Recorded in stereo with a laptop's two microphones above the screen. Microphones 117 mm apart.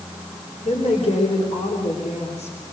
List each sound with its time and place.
0.7 s a woman speaking: 70° left (ahead or behind), 4.5 m